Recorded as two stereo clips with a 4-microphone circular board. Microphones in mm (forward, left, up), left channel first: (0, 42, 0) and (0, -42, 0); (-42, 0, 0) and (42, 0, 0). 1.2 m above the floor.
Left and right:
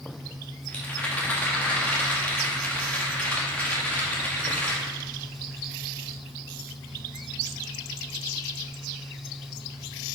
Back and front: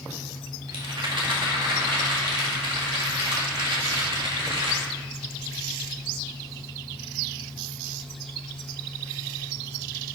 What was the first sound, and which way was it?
A rattle, 15° left.